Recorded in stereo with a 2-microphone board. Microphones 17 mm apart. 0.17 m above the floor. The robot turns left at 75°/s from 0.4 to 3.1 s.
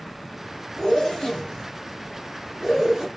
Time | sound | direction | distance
0.8 | a zipper | 40° left (ahead or behind) | 2 m